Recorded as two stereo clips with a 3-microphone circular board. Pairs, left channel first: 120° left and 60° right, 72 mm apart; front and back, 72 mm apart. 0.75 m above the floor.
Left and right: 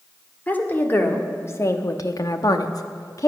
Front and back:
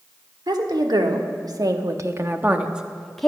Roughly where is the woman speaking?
Behind.